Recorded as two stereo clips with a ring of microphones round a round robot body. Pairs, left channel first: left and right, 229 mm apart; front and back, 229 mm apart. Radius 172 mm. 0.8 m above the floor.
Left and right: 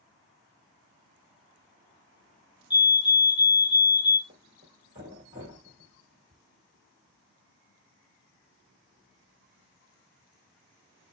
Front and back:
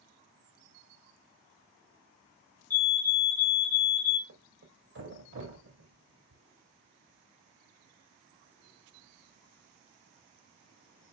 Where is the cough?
I don't hear a cough.